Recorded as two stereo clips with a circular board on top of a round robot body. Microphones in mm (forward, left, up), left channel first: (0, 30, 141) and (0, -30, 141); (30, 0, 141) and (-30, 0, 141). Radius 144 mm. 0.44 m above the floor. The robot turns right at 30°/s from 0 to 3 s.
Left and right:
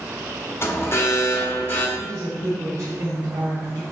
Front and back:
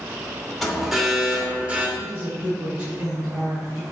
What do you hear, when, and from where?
0.6 s an alarm: 90° left, 2.0 m; by 1.9 s 130° left, 2.0 m
2.0 s a woman speaking: 160° right, 2.5 m; by 3.8 s 130° right, 2.5 m